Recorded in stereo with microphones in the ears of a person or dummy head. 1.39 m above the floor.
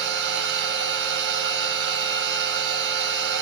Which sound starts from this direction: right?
A machine running, at 0.0 s.